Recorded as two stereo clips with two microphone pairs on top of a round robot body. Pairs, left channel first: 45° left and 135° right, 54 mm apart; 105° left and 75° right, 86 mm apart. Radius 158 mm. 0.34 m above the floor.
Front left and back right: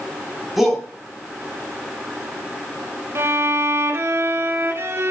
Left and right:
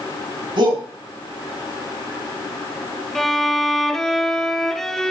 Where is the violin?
165° right, 2 m.